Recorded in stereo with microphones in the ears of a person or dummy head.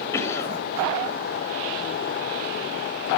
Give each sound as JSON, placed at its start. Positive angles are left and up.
{"t": 0.1, "sound": "a cough", "side_deg": 15, "distance_m": 5.0}